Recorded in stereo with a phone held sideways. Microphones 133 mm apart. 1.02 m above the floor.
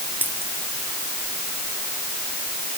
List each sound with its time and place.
0.2 s a dropped coin: 15° right (ahead or behind)